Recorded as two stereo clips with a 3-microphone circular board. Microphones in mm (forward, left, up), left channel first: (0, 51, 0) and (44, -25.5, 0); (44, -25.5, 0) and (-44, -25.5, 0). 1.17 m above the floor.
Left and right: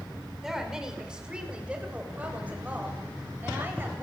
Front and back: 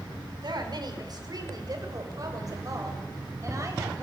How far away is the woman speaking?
About 5 m.